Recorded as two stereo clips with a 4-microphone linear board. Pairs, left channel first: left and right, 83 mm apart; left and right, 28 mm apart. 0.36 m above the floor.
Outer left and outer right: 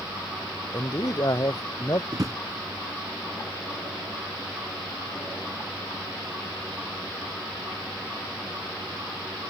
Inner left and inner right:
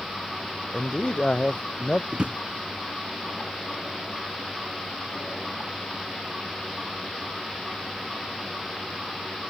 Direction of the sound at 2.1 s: 45° right (ahead or behind).